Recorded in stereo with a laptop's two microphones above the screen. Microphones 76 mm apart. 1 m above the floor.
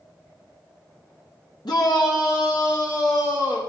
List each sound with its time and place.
1.6 s a shout: 70° left (ahead or behind), 1.7 m; by 3.6 s 40° left (ahead or behind), 3.5 m